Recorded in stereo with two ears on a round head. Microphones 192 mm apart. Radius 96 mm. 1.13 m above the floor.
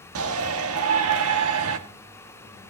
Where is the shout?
75° right (ahead or behind), 1.9 m.